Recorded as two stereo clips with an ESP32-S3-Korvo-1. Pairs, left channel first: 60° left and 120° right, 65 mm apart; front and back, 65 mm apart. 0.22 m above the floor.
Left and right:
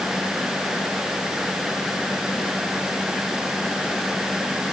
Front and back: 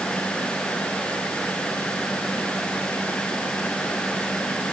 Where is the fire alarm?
No fire alarm in this recording.